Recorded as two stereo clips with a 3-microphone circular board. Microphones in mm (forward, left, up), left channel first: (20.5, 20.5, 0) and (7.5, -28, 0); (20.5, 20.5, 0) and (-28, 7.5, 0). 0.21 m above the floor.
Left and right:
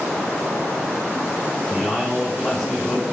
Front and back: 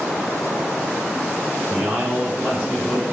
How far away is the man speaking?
About 0.9 m.